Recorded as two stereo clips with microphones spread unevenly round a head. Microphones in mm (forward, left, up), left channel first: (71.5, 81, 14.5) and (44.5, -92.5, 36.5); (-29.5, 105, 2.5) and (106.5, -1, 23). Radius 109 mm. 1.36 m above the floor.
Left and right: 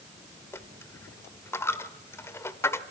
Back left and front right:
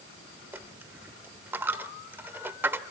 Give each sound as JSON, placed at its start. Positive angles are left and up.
{"t": 0.5, "sound": "a dropped coin", "azimuth_deg": 10, "distance_m": 1.1}